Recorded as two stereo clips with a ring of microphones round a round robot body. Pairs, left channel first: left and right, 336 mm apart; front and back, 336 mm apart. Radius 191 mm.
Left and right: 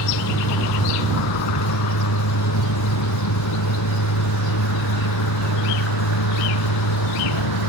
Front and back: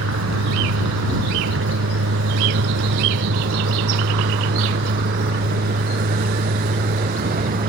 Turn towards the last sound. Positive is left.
turn(degrees=115)